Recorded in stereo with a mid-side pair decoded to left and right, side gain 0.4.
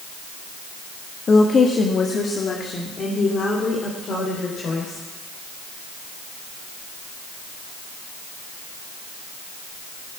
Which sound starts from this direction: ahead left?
A woman speaking, at 1.3 s.